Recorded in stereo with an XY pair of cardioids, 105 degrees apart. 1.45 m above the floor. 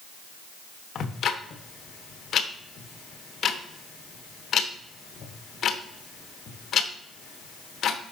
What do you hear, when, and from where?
0.9 s ticking: 55° left, 1.0 m